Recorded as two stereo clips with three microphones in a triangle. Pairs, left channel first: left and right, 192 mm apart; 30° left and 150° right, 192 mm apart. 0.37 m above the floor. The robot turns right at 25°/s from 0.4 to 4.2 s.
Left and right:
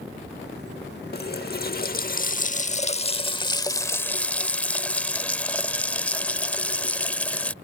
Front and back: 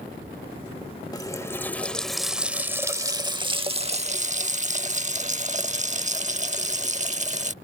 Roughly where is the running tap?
Left.